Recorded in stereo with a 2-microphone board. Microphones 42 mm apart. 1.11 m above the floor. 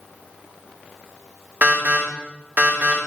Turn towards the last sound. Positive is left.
turn(degrees=-45)  # may be behind; listen again after turning